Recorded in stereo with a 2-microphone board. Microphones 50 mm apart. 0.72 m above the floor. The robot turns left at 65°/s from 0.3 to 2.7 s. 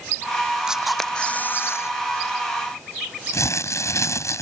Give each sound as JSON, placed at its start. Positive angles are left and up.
{"t": 0.7, "sound": "a camera shutter", "azimuth_deg": -165}
{"t": 3.3, "sound": "crumpling", "side_deg": 80}